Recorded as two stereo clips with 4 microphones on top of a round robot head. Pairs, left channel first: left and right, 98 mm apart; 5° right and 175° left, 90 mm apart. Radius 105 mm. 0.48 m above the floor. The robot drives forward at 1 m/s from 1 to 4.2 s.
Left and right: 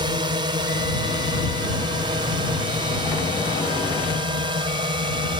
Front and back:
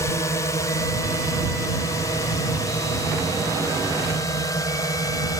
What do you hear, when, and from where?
0.0 s a drone: 60° right; by 5.4 s 55° right